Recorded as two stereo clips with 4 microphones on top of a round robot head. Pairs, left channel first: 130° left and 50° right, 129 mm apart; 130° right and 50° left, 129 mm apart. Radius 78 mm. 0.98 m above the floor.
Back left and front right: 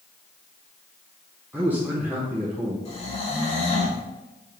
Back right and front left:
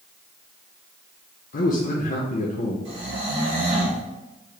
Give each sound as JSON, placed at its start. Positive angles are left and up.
{"t": 1.5, "sound": "a man speaking", "azimuth_deg": -125, "distance_m": 0.6}
{"t": 2.9, "sound": "snoring", "azimuth_deg": 90, "distance_m": 1.5}